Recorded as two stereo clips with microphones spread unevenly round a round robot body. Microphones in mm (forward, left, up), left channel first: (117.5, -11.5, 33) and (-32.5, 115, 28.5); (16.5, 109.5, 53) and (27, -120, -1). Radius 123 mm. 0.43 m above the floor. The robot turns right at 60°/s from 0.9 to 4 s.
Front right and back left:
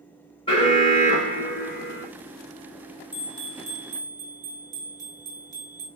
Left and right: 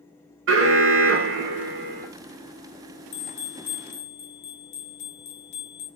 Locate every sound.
0.5 s an alarm: 110° right, 1.1 m; by 2.1 s 40° right, 1.1 m
3.1 s a bell: 60° left, 1.8 m; by 5.9 s 110° left, 1.8 m